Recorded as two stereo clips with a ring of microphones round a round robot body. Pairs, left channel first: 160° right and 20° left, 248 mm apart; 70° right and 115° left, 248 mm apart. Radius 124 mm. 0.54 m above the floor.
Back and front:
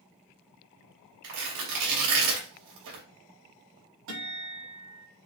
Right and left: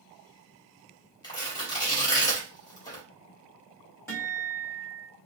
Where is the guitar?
10° left, 3.5 m.